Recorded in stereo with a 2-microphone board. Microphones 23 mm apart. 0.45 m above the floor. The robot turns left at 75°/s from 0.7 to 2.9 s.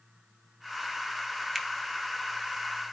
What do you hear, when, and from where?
1.6 s a finger snap: 15° left (ahead or behind), 2.5 m; by 1.7 s 20° left (ahead or behind), 2.5 m